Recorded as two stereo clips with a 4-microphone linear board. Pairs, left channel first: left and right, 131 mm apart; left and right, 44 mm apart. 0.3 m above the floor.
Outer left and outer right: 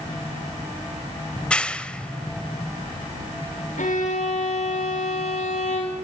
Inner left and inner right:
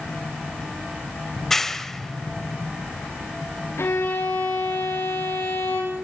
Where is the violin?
80° left, 7 m.